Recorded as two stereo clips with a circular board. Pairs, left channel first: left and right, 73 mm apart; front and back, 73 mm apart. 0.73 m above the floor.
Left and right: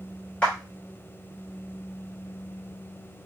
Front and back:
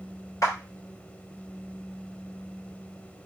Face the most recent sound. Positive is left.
turn(degrees=25)